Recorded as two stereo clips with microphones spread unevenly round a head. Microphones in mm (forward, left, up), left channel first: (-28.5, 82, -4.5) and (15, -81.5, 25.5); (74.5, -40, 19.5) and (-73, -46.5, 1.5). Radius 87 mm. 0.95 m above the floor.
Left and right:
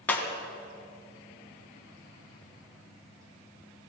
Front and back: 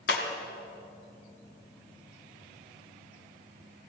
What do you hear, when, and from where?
0.1 s breaking glass: 20° left, 2.5 m